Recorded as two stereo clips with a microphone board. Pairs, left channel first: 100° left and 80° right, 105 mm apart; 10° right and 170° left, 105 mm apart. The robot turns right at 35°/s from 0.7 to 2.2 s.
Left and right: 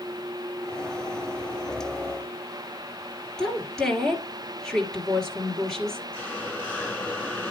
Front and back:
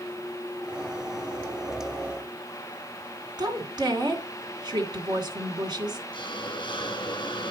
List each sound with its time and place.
3.4 s a woman speaking: 175° right, 2.5 m
6.1 s a hiss: 25° left, 1.6 m